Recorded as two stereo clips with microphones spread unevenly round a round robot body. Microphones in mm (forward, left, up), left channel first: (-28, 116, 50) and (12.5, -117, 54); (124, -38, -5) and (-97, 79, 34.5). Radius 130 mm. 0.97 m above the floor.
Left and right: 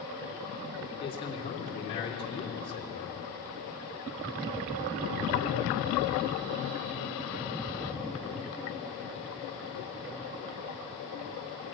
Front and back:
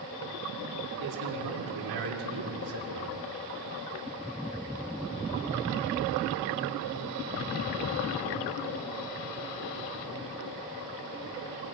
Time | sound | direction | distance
1.0 | a man speaking | 170° left | 3 m